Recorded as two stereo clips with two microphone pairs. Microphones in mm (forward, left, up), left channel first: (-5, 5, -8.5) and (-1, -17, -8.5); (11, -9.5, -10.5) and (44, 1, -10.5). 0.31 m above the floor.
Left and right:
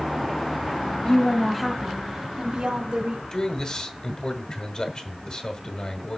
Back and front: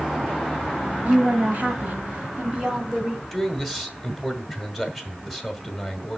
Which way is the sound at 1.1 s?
45° left.